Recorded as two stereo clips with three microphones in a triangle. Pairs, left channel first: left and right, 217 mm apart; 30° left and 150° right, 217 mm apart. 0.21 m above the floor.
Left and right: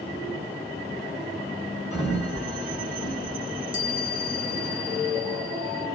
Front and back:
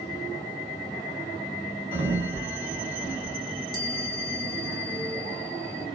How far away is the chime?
About 2.5 m.